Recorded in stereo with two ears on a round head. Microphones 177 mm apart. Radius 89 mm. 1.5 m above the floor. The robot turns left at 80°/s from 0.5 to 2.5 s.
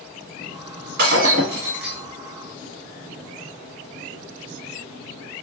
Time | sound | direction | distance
1.0 | breaking glass | 105° right | 1.3 m